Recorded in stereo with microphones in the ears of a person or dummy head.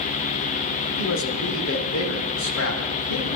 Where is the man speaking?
65° left (ahead or behind), 1.8 m.